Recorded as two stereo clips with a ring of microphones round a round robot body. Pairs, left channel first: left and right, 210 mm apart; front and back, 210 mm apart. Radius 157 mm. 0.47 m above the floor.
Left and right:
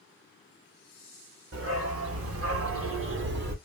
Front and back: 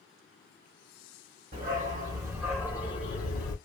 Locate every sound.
1.5 s a dog barking: 125° right, 0.9 m; by 3.5 s 45° right, 0.9 m